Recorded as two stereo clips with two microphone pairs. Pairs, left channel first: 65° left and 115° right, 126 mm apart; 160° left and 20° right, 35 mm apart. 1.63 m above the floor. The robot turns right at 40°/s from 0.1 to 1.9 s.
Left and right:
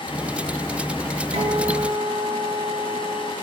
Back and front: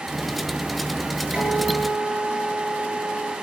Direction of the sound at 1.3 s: 75° right.